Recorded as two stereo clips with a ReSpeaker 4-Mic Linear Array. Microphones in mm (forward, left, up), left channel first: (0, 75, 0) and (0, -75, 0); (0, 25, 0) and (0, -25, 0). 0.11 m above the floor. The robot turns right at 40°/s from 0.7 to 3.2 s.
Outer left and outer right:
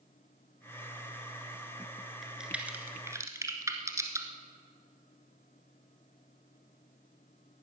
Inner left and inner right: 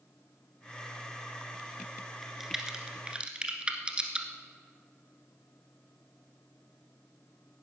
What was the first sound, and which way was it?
A crack, centre (ahead or behind).